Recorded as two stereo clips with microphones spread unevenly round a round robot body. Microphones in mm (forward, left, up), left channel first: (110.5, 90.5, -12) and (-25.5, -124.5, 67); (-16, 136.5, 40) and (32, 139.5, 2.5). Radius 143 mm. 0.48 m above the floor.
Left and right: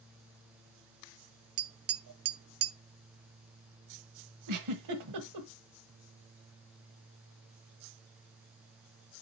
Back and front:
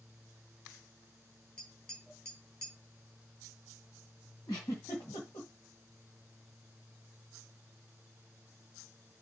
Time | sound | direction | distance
1.6 | tapping | 75° right | 0.6 m
4.5 | a giggle | 105° right | 1.5 m